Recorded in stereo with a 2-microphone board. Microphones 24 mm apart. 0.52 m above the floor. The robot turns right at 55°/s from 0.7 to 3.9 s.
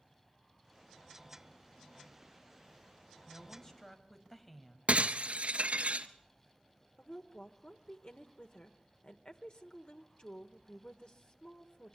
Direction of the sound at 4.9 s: 75° right (ahead or behind).